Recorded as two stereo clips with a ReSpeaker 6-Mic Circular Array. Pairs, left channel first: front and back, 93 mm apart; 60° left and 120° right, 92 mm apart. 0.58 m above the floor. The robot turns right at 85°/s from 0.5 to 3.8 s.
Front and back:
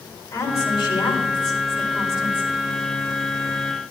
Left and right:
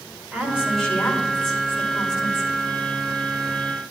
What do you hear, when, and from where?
0.3 s a woman speaking: 50° right, 2.5 m; by 2.5 s 120° left, 2.5 m